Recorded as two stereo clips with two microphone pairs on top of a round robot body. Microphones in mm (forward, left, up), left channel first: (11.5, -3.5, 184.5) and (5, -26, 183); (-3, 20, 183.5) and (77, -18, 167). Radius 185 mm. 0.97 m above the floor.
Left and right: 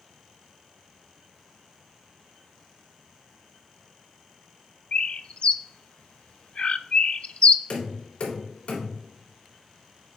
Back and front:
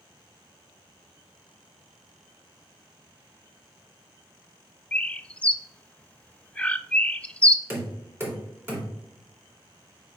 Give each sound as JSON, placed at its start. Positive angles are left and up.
{"t": 4.9, "sound": "a bird", "azimuth_deg": 65, "distance_m": 0.6}
{"t": 7.7, "sound": "knocking", "azimuth_deg": 35, "distance_m": 3.0}